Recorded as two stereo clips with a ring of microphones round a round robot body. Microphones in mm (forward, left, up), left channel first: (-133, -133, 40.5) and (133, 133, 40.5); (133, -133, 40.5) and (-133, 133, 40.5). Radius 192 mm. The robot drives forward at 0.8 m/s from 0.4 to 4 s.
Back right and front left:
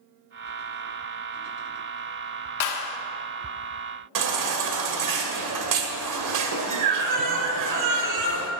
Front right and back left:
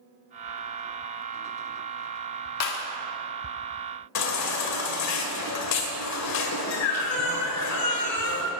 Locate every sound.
2.6 s a clap: 85° right, 1.3 m; by 3.0 s 100° right, 1.3 m
4.2 s a baby crying: 5° left, 1.4 m